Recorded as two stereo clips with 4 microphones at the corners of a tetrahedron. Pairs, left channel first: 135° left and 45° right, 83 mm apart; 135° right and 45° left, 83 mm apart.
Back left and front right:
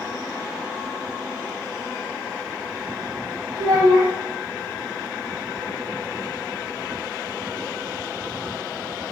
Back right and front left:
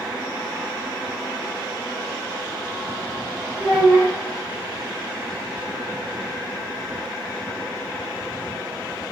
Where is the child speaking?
85° right, 0.6 m.